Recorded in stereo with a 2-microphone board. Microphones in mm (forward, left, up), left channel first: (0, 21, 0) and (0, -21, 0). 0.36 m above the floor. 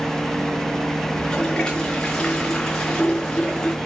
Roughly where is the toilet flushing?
Centre.